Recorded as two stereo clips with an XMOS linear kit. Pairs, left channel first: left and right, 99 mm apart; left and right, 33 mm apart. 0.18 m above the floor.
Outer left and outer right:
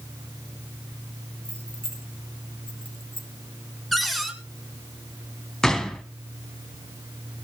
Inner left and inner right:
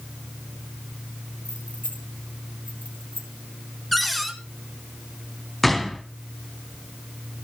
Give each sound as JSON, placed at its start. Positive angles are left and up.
{"t": 1.4, "sound": "keys jangling", "side_deg": 70, "distance_m": 2.5}
{"t": 3.9, "sound": "a cupboard door", "side_deg": 0, "distance_m": 1.6}
{"t": 5.6, "sound": "a gunshot", "side_deg": 5, "distance_m": 1.2}